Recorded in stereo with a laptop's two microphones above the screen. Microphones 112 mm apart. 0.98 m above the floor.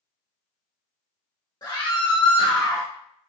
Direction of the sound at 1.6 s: 35° left (ahead or behind).